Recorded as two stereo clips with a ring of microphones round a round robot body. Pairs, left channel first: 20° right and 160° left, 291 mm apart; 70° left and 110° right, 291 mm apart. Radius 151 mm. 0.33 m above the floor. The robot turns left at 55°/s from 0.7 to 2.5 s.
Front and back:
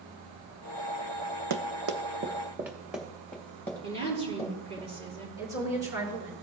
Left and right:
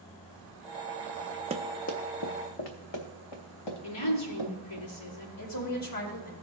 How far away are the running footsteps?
About 0.8 m.